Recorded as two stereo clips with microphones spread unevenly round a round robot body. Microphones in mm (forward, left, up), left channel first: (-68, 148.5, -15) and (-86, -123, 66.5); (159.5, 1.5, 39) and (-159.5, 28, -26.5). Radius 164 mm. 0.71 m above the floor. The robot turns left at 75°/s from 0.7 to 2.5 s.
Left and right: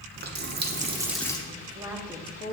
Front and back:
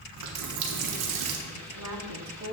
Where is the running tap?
155° right, 0.8 m; by 1.4 s 155° left, 0.8 m.